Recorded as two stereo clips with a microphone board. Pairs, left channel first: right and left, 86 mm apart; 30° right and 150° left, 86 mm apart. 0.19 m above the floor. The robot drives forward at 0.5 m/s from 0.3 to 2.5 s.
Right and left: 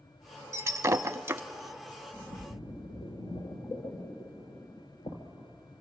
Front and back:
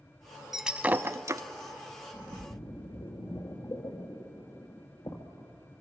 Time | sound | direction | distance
0.5 | breaking glass | 65° left | 0.5 m
2.1 | a splash | 60° right | 2.5 m